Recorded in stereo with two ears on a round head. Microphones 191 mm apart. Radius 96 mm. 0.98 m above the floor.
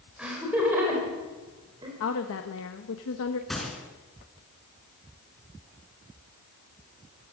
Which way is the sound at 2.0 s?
65° left (ahead or behind).